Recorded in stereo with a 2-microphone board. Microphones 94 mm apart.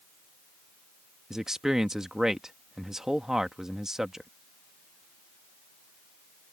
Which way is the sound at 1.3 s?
5° right (ahead or behind).